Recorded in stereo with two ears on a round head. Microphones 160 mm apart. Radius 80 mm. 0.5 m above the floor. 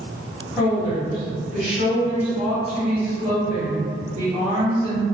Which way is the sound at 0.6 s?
Centre (ahead or behind).